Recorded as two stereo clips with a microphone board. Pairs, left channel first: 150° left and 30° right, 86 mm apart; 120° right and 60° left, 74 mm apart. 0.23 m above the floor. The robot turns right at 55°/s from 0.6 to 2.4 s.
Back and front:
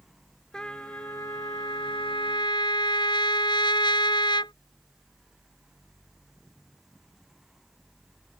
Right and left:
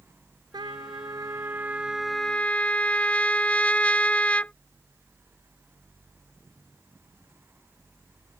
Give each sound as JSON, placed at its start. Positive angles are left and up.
{"t": 0.5, "sound": "a trumpet", "azimuth_deg": 70}